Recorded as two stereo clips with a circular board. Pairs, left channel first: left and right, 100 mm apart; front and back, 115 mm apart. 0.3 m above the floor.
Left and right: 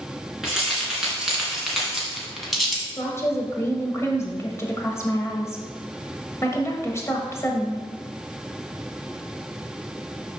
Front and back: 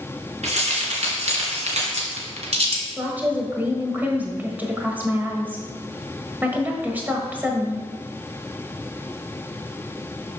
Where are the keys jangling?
175° right, 2.5 m; by 2.9 s straight behind, 1.5 m.